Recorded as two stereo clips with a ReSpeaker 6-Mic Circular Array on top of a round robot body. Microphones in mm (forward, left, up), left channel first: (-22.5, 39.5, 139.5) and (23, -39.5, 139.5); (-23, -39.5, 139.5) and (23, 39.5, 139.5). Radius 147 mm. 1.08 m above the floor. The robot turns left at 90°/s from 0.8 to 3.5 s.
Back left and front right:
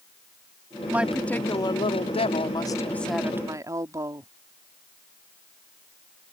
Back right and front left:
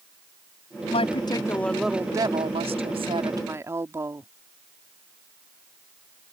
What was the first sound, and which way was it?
A woman speaking, 130° right.